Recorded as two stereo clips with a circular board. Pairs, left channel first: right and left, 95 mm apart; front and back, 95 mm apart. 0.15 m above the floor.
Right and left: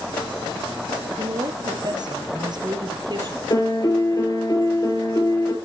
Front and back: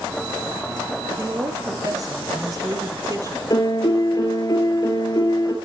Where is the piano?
45° right, 2.5 m.